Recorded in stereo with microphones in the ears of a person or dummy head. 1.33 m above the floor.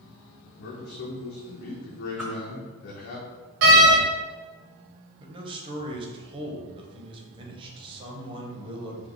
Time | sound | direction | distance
0.6 | a man speaking | 55° left (ahead or behind) | 0.9 m
2.2 | a whoosh | 5° right (ahead or behind) | 1.4 m
3.6 | a door slam | 60° right (ahead or behind) | 1.0 m
5.2 | a man speaking | 30° right (ahead or behind) | 1.1 m